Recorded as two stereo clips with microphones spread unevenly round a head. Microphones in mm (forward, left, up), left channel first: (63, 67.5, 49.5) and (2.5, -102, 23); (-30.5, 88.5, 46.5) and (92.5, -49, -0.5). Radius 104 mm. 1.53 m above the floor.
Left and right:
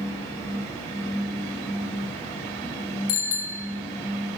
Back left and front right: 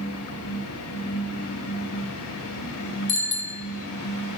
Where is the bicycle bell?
85° left, 4 m.